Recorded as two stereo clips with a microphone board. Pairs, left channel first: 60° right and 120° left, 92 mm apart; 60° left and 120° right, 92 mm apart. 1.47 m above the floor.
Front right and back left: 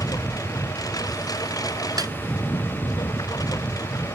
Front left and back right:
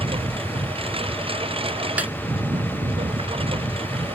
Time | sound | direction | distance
0.0 | a lawn mower | 110° right | ?
2.0 | a snare drum | 165° left | ?